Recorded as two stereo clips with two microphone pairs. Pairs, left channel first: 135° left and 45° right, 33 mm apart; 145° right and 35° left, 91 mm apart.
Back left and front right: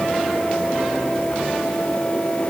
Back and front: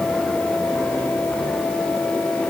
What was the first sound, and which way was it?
Only background noise.